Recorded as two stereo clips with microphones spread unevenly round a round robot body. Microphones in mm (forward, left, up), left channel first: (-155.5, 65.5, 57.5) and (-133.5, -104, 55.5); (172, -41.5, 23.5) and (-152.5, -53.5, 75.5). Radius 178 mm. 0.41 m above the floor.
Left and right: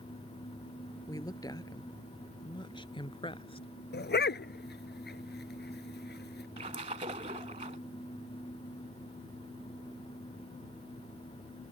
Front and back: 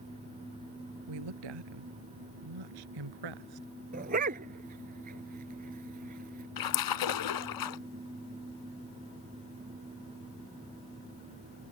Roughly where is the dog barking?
Behind left.